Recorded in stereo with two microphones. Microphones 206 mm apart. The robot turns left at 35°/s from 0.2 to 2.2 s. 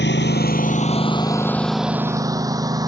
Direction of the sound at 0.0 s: 60° left (ahead or behind).